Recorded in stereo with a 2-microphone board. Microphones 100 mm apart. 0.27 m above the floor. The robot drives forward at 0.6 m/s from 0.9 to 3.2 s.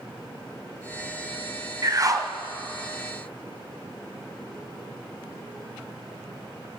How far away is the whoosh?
About 1.4 m.